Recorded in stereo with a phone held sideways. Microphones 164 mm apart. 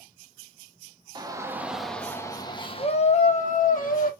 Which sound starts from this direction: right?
A shout, at 1.1 s.